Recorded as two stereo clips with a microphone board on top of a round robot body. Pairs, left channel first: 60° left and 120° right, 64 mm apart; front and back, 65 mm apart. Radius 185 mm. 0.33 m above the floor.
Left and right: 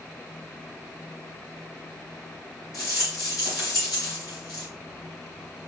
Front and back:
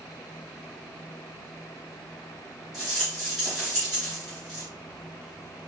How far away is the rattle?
About 3.5 m.